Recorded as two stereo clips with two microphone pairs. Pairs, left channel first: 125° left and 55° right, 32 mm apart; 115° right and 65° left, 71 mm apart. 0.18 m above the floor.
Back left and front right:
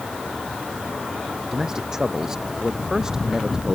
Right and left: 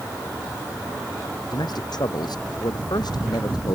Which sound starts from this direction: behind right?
A man speaking, at 1.5 s.